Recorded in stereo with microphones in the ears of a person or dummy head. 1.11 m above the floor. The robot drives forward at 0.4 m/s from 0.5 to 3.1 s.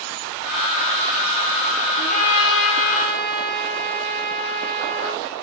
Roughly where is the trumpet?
Left.